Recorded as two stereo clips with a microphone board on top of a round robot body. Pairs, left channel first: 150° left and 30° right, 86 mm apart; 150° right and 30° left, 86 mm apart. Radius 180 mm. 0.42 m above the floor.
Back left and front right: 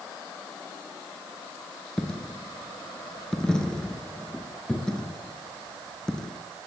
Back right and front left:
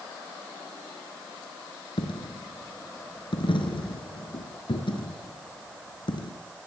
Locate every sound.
2.0 s a dropped coin: 130° right, 3.5 m